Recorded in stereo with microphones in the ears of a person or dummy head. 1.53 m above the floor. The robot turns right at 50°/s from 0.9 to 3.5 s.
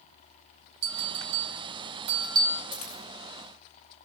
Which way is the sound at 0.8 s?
85° right.